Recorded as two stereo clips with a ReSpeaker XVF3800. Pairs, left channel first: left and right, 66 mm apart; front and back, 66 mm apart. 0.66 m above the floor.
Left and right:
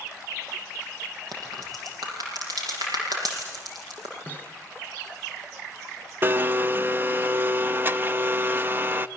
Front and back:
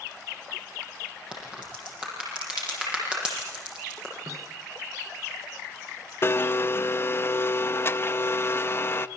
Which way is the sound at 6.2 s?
40° right.